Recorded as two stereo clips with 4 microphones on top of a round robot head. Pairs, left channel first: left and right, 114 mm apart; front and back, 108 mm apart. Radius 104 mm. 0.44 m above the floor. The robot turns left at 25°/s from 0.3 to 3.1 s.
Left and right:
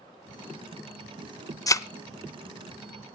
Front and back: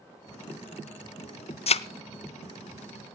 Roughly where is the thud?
Ahead left.